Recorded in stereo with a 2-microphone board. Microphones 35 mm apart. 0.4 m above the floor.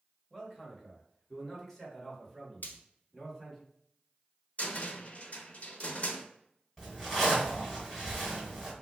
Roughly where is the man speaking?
Centre.